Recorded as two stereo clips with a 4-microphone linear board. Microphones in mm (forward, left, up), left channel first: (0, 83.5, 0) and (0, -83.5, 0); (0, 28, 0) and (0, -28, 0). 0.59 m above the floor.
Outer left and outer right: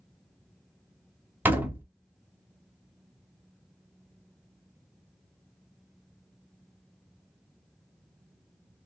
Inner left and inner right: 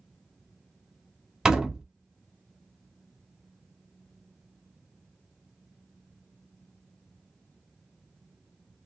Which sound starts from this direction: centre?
A door slam, at 1.4 s.